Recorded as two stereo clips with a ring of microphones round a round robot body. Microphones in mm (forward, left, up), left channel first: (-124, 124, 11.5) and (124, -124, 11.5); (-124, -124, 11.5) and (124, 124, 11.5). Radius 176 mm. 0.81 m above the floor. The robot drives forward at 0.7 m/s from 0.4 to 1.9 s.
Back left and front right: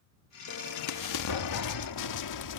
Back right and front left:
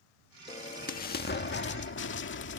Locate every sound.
0.5 s an explosion: 155° left; by 2.6 s 170° left